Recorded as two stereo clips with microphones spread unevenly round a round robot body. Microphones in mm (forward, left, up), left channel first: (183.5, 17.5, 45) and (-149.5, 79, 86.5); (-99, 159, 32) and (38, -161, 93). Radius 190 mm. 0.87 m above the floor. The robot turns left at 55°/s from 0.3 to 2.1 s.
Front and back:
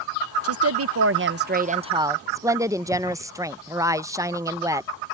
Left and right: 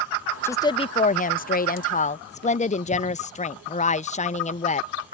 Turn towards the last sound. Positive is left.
turn(degrees=85)